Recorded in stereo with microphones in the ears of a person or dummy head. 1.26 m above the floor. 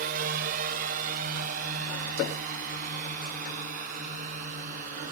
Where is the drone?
50° right (ahead or behind); by 5.1 s 45° right (ahead or behind).